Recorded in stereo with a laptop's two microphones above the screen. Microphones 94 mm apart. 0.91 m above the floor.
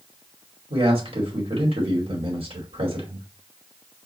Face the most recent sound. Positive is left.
turn(degrees=-75)  # may be behind; listen again after turning